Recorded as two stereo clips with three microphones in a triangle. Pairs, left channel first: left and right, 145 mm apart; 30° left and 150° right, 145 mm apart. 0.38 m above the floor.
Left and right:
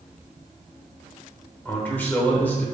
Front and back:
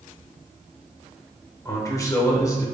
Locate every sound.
1.6 s a man speaking: 30° left, 0.8 m